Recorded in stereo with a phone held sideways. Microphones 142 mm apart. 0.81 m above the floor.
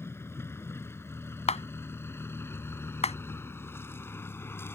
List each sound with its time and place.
0.0 s a vehicle: 15° left (ahead or behind)
1.5 s a clap: 50° left (ahead or behind)